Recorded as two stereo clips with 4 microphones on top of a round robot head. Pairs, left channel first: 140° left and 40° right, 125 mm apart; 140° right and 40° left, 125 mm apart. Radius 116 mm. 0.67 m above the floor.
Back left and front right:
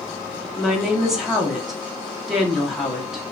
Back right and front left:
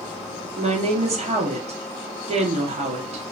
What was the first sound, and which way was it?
A woman speaking, 45° left.